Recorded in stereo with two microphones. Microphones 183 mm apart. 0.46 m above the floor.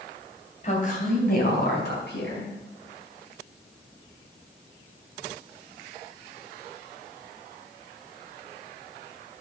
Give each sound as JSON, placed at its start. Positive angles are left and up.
{"t": 0.6, "sound": "a woman speaking", "side_deg": 40, "distance_m": 3.0}